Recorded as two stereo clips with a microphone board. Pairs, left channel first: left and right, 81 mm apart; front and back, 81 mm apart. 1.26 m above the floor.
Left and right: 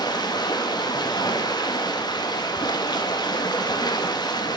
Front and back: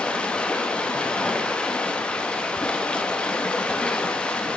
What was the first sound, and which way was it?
Running water, 75° left.